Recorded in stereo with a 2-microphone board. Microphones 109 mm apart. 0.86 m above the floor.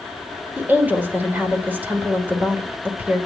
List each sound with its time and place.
0.6 s a woman speaking: 15° right (ahead or behind), 3 m